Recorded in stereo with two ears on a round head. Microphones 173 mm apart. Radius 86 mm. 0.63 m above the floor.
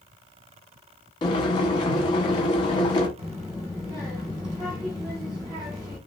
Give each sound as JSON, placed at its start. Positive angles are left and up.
{"t": 1.2, "sound": "boiling", "side_deg": 25, "distance_m": 1.1}
{"t": 3.2, "sound": "a child speaking", "side_deg": -20, "distance_m": 1.3}